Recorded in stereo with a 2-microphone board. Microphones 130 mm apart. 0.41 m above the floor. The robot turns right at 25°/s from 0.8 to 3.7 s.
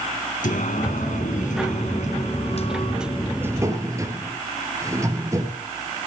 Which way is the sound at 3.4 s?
15° right (ahead or behind).